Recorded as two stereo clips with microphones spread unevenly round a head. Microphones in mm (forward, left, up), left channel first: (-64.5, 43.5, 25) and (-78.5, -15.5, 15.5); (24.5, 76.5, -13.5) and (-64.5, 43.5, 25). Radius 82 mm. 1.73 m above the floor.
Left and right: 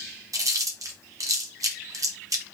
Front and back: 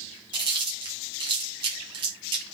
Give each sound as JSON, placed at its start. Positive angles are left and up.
{"t": 0.3, "sound": "chewing", "azimuth_deg": -130, "distance_m": 0.8}